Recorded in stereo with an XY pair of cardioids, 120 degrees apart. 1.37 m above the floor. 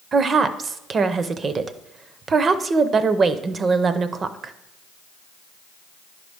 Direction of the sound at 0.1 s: 35° right.